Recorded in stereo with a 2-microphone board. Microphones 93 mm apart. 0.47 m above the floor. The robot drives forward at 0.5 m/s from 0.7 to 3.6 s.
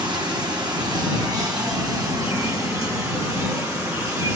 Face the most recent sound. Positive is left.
turn(degrees=-35)  # may be behind; listen again after turning